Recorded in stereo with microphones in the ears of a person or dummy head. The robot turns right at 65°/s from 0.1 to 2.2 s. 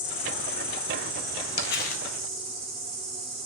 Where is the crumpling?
115° left, 0.6 m; by 2.0 s 145° left, 0.6 m.